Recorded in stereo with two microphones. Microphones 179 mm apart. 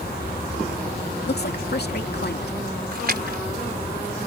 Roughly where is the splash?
Right.